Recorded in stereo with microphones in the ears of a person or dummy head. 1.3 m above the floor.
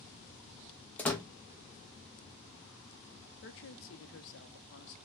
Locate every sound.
1.0 s a door slam: 10° left (ahead or behind), 0.7 m
3.4 s a woman speaking: 65° left (ahead or behind), 0.7 m